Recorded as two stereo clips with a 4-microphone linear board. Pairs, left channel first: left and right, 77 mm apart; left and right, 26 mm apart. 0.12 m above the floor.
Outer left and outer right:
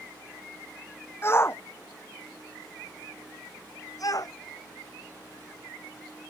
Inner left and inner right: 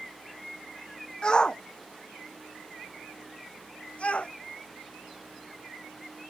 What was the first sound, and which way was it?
A shout, 30° left (ahead or behind).